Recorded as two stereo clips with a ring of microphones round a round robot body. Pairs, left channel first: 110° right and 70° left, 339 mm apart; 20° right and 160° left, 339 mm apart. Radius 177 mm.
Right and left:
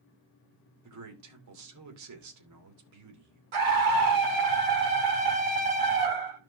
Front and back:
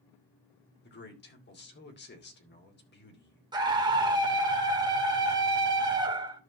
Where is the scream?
80° left, 2.5 m.